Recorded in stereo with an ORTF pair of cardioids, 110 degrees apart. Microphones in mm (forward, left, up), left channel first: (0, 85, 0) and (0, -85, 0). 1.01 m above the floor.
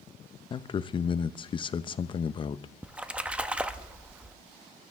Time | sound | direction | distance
0.5 | a man speaking | 30° left | 0.6 m
2.8 | a splash | 5° right | 0.7 m